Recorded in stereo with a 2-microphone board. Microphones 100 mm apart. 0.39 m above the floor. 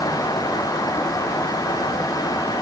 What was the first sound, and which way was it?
Only background noise.